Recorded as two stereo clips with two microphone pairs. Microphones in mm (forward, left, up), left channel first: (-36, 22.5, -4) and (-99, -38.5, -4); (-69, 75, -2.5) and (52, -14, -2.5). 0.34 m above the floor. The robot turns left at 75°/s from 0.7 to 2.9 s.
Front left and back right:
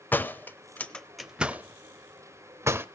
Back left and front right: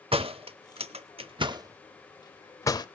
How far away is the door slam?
About 0.7 m.